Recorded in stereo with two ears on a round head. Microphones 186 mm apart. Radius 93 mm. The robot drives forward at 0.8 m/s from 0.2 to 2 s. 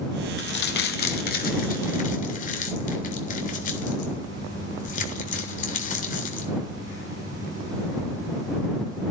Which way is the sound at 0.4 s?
60° left (ahead or behind).